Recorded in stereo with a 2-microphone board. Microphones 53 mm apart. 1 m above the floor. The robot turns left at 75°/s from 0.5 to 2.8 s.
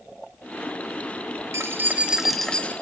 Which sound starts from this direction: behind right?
Keys jangling, at 1.5 s.